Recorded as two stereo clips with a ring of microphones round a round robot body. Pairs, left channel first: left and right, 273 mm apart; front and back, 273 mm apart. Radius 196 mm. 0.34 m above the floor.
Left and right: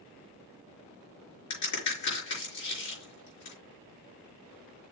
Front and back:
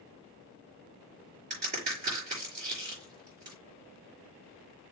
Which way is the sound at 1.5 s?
110° left.